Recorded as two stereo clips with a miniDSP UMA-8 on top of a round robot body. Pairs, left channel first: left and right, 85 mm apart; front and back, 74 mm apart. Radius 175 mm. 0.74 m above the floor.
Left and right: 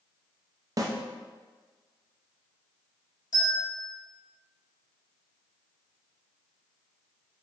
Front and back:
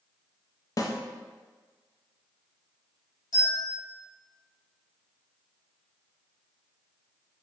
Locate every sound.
0.8 s a snare drum: 45° right, 0.5 m
3.3 s a bell: 50° left, 1.0 m